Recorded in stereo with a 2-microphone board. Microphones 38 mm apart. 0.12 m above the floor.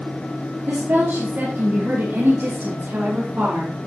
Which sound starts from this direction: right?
A woman speaking, at 0.7 s.